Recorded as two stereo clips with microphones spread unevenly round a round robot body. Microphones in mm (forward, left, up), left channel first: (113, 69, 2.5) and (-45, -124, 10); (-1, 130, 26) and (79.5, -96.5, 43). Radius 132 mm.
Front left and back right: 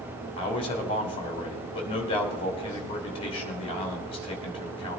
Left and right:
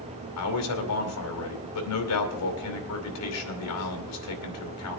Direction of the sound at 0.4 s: 120° left.